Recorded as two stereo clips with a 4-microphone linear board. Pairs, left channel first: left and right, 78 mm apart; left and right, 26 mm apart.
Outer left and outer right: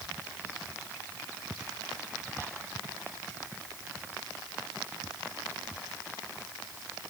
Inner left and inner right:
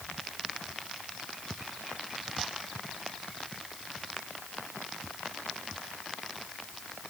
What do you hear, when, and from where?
Only background noise.